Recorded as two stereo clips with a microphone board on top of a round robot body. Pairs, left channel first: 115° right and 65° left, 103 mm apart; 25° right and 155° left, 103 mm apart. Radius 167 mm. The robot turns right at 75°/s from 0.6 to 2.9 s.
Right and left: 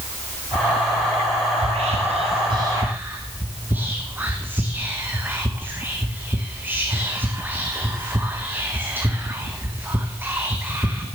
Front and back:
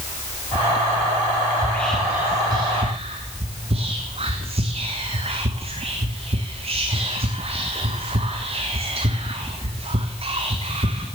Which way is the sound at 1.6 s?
40° left.